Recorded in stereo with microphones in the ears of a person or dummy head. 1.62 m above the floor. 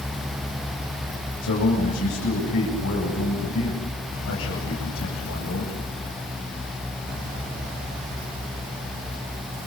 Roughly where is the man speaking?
Left.